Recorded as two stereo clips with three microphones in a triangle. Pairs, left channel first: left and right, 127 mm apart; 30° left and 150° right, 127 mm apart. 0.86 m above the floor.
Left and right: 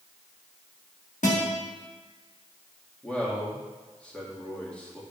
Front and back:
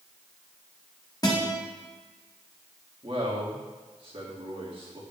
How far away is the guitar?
About 1.4 m.